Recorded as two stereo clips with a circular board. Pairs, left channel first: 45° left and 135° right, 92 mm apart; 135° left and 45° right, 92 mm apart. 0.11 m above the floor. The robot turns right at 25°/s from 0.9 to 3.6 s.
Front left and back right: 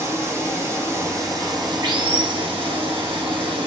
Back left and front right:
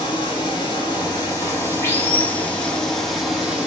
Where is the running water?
165° left, 2.5 m; by 3.7 s 125° right, 2.5 m.